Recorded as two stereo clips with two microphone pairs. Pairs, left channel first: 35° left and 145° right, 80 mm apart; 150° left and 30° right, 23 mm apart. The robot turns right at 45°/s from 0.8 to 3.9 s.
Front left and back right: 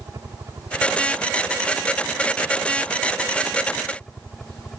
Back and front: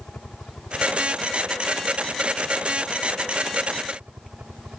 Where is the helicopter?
175° left; by 4.8 s 45° right.